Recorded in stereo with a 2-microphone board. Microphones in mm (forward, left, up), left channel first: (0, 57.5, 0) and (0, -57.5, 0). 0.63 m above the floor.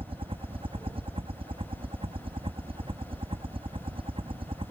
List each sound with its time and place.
0.0 s a helicopter: 55° right (ahead or behind); by 4.7 s 50° right (ahead or behind)